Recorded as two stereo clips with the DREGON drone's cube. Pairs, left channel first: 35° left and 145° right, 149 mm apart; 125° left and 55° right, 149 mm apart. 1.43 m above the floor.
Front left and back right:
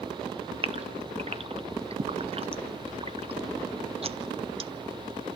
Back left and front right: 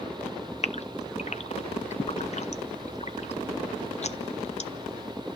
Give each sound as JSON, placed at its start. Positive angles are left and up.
{"t": 0.6, "sound": "a gasp", "azimuth_deg": 165, "distance_m": 0.9}